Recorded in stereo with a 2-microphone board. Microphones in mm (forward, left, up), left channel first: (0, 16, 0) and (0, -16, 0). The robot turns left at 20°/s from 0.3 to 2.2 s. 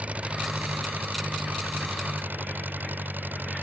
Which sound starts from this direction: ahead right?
An engine running, at 0.0 s.